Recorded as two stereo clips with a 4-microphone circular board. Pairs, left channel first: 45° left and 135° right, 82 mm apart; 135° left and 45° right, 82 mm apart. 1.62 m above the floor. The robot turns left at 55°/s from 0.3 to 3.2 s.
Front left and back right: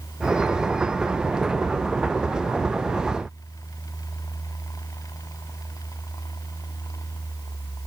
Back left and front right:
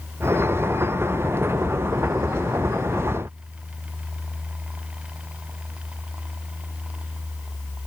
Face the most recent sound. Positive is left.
No sound to turn to.